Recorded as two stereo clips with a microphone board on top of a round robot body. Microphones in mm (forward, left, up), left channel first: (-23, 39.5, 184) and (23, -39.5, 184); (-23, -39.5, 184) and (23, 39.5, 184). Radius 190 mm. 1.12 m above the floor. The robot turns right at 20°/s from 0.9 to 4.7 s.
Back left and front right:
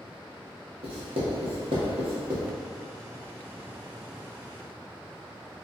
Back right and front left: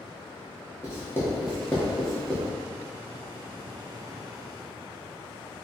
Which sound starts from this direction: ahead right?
Writing, at 0.8 s.